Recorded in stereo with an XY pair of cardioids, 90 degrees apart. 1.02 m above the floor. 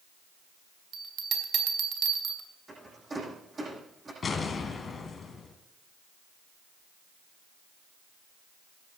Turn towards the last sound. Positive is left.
turn(degrees=45)